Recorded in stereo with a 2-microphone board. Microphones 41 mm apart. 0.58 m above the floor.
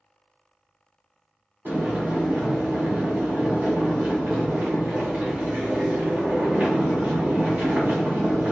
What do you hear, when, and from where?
1.6 s boiling: 50° right (ahead or behind), 1.4 m